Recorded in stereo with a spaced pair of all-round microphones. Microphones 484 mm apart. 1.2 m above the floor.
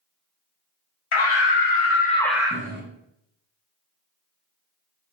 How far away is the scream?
About 0.9 m.